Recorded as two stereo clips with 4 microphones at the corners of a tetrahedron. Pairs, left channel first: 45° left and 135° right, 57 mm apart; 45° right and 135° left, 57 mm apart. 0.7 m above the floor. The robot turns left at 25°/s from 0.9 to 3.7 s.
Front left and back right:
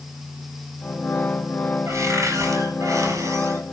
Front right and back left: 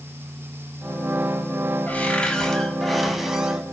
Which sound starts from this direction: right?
A cupboard door, at 1.9 s.